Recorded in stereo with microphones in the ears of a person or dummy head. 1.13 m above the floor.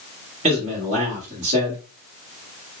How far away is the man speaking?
About 1.6 m.